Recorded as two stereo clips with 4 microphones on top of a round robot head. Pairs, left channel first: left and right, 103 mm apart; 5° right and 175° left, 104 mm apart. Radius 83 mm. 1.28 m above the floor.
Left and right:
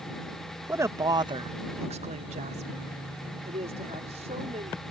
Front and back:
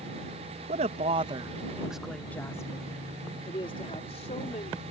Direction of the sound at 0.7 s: 155° right.